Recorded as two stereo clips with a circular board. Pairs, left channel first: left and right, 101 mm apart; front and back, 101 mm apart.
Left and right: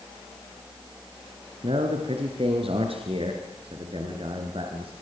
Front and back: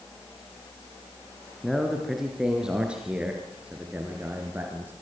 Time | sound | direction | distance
1.6 | a man speaking | 90° right | 3.5 m